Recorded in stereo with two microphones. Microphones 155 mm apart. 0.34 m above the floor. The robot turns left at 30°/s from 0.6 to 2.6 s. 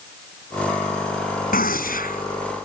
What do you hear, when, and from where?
1.5 s a gunshot: 70° left (ahead or behind)